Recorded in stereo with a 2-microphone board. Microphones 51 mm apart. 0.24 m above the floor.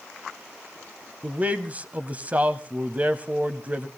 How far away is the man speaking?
About 1.1 m.